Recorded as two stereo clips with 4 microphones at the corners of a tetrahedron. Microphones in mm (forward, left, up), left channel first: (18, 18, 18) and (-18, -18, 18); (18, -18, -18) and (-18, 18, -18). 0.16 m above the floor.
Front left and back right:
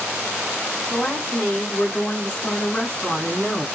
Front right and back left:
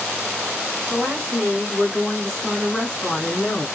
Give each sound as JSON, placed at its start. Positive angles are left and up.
{"t": 0.9, "sound": "a woman speaking", "azimuth_deg": 100, "distance_m": 1.5}